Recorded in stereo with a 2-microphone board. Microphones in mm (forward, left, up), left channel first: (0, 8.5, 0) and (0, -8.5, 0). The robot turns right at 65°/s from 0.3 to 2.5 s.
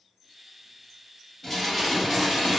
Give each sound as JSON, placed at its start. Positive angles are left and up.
{"t": 1.4, "sound": "dishes clattering", "azimuth_deg": 165, "distance_m": 1.4}